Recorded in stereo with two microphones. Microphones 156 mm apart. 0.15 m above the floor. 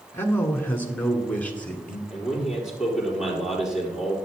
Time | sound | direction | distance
0.1 | a man speaking | 15° left (ahead or behind) | 1.4 m
2.1 | a man speaking | 5° right (ahead or behind) | 4.5 m